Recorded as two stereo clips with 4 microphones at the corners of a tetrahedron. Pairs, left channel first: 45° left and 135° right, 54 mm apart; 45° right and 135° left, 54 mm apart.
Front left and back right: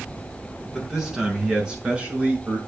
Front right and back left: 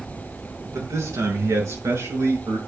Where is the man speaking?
140° left, 5.5 m; by 2.6 s 160° left, 6.5 m.